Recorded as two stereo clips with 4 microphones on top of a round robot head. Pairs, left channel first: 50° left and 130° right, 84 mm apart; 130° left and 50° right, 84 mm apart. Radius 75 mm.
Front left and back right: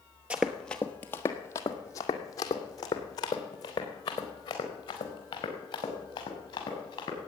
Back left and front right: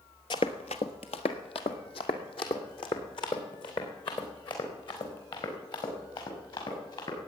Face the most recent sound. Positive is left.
turn(degrees=90)